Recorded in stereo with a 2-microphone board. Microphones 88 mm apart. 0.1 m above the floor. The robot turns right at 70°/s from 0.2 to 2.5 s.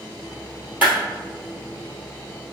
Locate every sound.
0.8 s a clap: 20° right (ahead or behind), 2.0 m; by 0.9 s 30° right (ahead or behind), 2.0 m